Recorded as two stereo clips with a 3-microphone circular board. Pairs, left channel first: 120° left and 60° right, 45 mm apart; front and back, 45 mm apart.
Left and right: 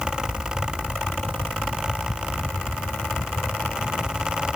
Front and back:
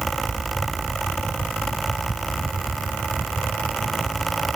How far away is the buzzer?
I don't hear a buzzer.